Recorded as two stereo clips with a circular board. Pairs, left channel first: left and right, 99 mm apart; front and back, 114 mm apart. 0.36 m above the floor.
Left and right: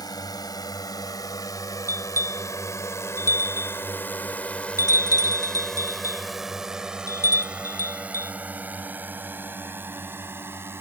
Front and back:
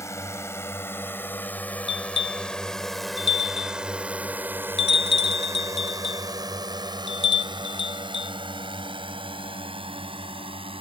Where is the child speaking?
I don't hear a child speaking.